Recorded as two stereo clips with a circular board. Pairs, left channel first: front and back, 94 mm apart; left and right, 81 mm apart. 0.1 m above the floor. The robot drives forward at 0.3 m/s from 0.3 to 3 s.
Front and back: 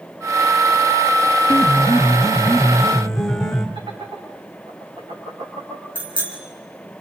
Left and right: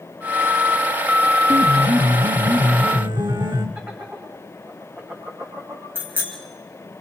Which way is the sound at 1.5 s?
75° right.